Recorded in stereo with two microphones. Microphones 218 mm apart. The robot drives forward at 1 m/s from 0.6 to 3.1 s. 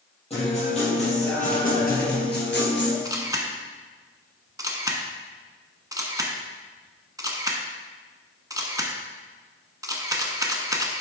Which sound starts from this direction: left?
A guitar, at 0.3 s.